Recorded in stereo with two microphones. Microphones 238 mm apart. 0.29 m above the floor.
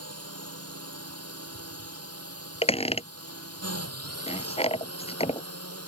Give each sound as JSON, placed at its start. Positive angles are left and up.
{"t": 0.0, "sound": "a drone", "side_deg": -80}
{"t": 2.6, "sound": "a squeak", "side_deg": 25}